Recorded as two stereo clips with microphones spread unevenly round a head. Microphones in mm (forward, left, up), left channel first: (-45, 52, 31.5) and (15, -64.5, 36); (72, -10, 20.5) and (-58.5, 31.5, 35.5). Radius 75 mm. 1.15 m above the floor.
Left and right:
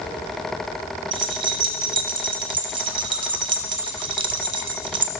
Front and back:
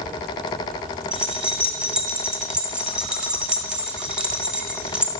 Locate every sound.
1.1 s keys jangling: 115° right, 0.8 m